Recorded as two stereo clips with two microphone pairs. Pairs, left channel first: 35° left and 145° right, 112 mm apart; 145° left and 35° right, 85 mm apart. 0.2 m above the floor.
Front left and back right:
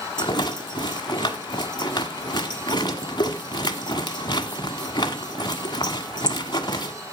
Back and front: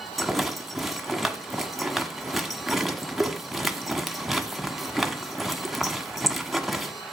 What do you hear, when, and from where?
0.2 s a rattle: 60° left, 1.3 m